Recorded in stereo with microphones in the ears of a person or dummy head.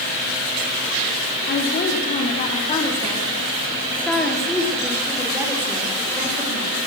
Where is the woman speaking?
60° left (ahead or behind), 3 m; by 6.8 s 20° right (ahead or behind), 5.5 m.